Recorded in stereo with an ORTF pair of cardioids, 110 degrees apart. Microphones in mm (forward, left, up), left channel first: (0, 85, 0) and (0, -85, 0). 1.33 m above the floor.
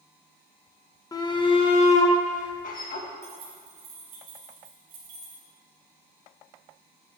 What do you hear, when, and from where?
1.1 s a shout: 20° left, 1.5 m; by 3.1 s 60° left, 2.0 m
3.2 s keys jangling: 70° right, 3 m